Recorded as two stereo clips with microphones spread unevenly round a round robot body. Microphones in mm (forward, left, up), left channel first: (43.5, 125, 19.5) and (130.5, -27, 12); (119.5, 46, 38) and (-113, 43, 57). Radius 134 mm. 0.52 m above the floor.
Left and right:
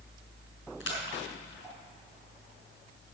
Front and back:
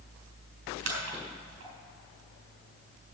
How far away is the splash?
About 4 m.